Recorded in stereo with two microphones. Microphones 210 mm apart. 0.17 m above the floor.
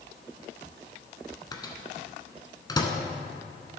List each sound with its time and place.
1.5 s a microwave: 20° left (ahead or behind), 1.1 m